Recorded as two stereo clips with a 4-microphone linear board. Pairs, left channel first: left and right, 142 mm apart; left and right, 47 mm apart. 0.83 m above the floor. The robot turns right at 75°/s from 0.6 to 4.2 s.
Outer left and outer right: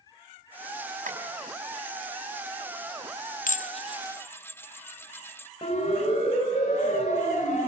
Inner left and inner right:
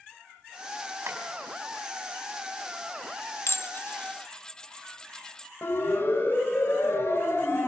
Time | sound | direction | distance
1.1 | tapping | 70° right (ahead or behind) | 4.5 m
3.5 | dishes clattering | 65° left (ahead or behind) | 0.7 m
5.6 | a siren | 45° left (ahead or behind) | 6 m